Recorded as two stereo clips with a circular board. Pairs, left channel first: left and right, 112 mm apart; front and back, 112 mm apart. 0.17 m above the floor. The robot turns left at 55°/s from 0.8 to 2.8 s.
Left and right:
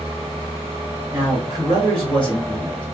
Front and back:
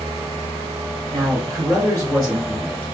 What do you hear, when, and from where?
1.1 s a man speaking: 145° right, 1.8 m; by 2.8 s 125° left, 1.8 m